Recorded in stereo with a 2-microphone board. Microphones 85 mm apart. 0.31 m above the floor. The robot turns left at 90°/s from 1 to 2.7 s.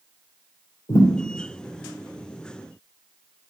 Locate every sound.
0.9 s a thud: 80° left, 3 m; by 1.1 s 85° left, 3 m